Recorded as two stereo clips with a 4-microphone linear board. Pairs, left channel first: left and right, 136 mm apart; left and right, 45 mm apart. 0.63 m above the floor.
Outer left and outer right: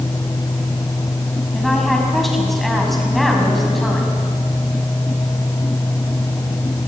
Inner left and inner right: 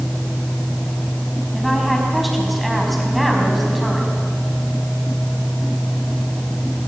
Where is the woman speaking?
Centre (ahead or behind), 5.5 m.